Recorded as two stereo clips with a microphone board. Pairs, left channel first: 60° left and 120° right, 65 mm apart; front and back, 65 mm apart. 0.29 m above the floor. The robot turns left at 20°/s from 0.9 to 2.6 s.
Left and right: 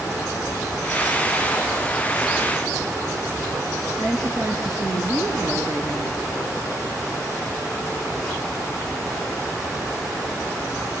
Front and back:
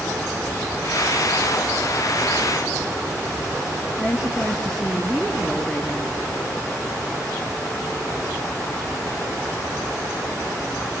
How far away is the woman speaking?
About 4 m.